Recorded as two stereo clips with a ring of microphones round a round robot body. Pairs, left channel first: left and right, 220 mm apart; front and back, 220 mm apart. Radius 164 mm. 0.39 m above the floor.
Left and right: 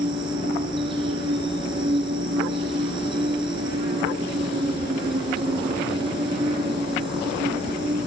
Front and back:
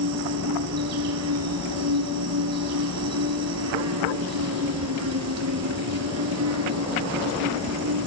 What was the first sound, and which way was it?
An insect, 165° right.